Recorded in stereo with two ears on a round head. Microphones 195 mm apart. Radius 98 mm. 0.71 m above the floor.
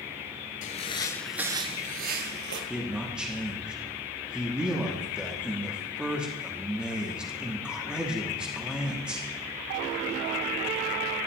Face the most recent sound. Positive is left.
turn(degrees=-5)  # may be behind; listen again after turning